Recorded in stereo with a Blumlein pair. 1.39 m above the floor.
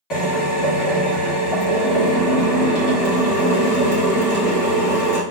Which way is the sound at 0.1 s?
30° left.